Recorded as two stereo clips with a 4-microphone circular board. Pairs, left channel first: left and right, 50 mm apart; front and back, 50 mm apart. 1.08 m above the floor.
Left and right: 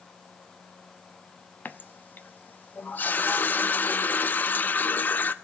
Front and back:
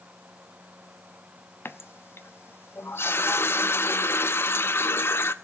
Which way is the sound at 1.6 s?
40° left.